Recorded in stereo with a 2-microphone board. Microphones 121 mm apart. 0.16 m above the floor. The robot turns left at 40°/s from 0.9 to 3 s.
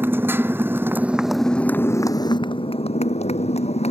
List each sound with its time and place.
0.0 s a motorcycle: 160° right; by 3.9 s 115° left